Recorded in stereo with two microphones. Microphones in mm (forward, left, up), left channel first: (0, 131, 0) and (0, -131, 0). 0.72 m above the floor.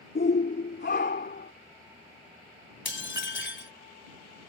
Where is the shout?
45° left (ahead or behind); by 1.5 s 40° left (ahead or behind).